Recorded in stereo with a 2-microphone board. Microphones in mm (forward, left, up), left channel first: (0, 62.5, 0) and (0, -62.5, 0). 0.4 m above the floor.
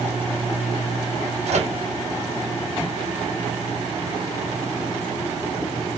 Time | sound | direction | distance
1.5 | a microwave | 65° right (ahead or behind) | 1.5 m